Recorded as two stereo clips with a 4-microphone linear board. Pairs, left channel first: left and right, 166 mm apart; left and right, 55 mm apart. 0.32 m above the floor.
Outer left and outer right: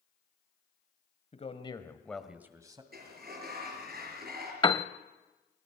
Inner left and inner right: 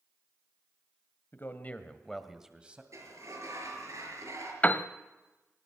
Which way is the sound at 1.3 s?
45° left (ahead or behind).